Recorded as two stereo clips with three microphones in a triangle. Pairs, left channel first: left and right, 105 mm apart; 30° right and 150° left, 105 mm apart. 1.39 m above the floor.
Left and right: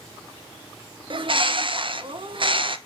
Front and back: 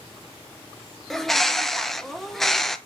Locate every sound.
1.1 s a bird: 115° right, 0.6 m